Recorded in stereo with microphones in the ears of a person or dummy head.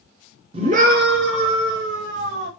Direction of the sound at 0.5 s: 30° right (ahead or behind).